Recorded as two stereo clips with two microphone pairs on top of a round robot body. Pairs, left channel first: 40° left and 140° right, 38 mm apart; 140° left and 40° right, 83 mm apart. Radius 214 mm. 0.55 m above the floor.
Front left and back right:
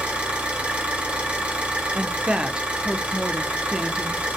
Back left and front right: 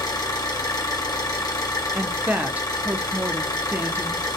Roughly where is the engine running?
Behind.